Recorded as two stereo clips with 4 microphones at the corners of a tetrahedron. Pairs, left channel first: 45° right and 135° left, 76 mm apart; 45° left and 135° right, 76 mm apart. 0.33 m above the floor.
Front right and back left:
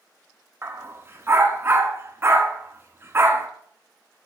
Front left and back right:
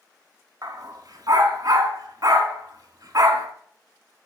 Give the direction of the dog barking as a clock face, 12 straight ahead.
6 o'clock.